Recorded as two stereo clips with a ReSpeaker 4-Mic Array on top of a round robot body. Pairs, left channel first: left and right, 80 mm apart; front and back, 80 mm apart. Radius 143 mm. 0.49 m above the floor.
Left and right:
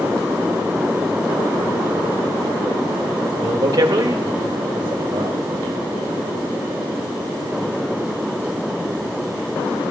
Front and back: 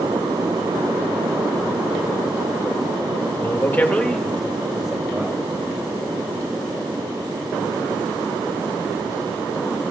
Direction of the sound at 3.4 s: 55° right.